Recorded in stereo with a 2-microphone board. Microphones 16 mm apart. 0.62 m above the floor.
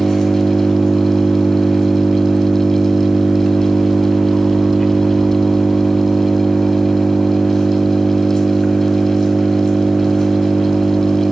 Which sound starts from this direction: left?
An engine running, at 0.0 s.